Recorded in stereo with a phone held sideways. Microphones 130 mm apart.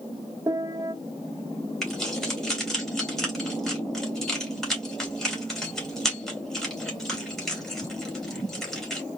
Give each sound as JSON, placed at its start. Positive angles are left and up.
{"t": 0.5, "sound": "a piano", "side_deg": -25, "distance_m": 0.9}
{"t": 1.8, "sound": "keys jangling", "side_deg": 5, "distance_m": 2.5}